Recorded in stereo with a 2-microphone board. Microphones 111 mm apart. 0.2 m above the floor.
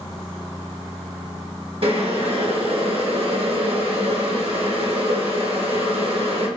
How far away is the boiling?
About 1.8 m.